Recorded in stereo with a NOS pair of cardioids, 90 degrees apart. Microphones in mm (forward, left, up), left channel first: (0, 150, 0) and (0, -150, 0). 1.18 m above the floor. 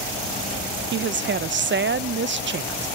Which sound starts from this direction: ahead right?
A woman speaking, at 0.9 s.